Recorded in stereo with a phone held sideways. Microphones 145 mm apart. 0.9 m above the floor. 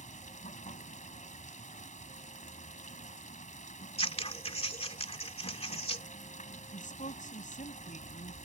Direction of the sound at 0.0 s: 60° left (ahead or behind).